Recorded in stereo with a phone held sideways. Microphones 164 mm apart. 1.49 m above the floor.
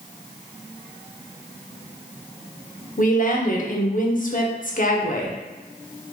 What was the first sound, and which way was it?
A woman speaking, 55° left (ahead or behind).